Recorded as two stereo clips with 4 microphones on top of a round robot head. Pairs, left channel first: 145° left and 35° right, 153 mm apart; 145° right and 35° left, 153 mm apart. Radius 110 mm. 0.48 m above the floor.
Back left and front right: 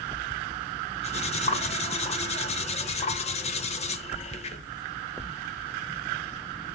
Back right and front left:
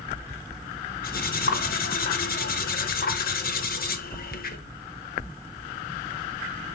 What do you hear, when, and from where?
1.0 s cutlery clinking: 170° right, 1.0 m